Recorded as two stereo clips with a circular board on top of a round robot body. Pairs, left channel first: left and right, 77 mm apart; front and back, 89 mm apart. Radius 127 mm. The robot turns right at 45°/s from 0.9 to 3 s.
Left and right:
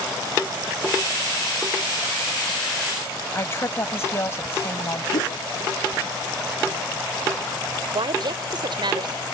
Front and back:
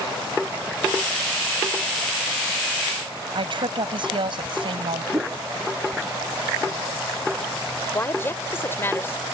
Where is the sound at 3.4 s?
145° left.